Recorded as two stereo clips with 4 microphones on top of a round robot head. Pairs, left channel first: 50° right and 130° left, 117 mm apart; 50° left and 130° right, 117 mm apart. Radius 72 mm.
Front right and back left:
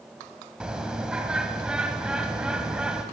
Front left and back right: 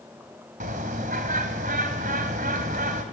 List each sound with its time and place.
0.6 s a bird: 150° right, 2 m